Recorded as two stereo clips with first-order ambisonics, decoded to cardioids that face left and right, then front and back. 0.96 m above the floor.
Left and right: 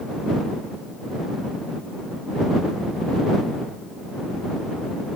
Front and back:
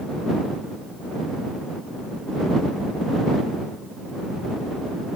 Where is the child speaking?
No child speaking in this recording.